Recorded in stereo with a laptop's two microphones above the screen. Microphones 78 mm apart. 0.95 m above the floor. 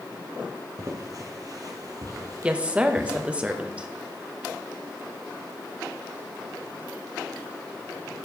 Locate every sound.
0.8 s footsteps: 40° right (ahead or behind), 1.4 m
2.4 s a woman speaking: 15° right (ahead or behind), 0.9 m